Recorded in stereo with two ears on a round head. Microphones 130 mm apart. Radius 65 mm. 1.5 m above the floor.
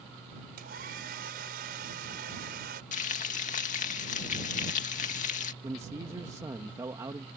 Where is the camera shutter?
I don't hear a camera shutter.